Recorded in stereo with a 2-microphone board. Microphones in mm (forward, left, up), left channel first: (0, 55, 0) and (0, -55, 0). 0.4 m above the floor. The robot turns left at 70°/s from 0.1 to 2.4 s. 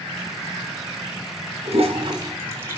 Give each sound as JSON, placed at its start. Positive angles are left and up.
{"t": 1.6, "sound": "a toilet flushing", "side_deg": -70, "distance_m": 3.5}